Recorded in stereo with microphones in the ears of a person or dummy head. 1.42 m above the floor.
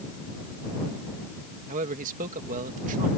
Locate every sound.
1.7 s a man speaking: 50° right (ahead or behind)